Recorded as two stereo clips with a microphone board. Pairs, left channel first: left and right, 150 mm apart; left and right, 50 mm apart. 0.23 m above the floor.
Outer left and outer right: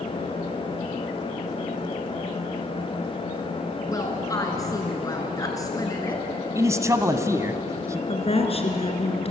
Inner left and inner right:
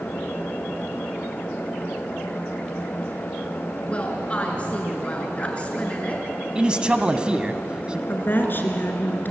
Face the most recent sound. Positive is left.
turn(degrees=45)  # may be behind; listen again after turning